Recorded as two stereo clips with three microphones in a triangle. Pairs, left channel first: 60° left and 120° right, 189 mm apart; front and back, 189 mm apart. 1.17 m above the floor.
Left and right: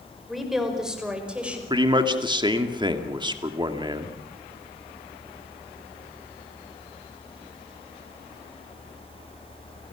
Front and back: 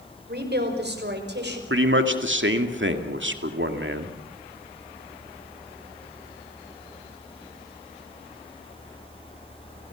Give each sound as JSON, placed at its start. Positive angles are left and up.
{"t": 0.3, "sound": "a woman speaking", "azimuth_deg": 150, "distance_m": 4.5}
{"t": 1.7, "sound": "a man speaking", "azimuth_deg": 175, "distance_m": 2.0}